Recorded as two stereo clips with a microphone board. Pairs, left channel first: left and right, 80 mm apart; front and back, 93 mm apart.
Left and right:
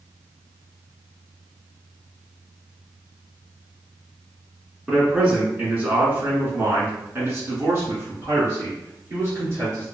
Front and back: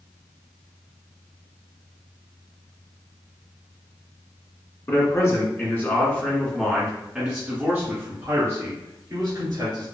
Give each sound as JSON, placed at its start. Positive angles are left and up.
{"t": 4.9, "sound": "a man speaking", "azimuth_deg": -25, "distance_m": 1.7}